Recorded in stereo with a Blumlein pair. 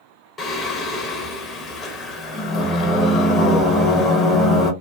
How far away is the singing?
About 0.9 m.